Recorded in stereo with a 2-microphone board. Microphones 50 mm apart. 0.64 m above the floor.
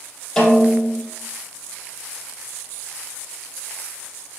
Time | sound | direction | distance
0.4 | a snare drum | 10° left (ahead or behind) | 2.0 m